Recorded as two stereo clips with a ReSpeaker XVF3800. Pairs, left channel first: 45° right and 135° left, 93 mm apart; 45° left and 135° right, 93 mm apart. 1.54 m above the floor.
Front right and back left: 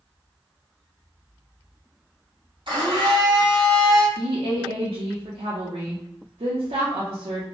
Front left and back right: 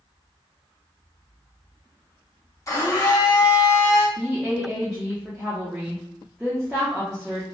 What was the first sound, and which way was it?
A blender, 100° left.